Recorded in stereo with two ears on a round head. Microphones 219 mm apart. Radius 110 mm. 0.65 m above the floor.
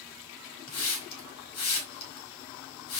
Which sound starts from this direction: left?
A hiss, at 0.7 s.